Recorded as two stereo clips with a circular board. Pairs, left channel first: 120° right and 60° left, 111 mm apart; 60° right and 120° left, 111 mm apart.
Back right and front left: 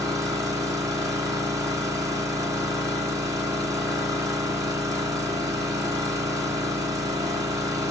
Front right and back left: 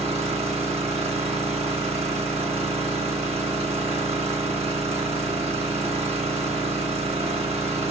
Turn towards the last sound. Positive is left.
turn(degrees=120)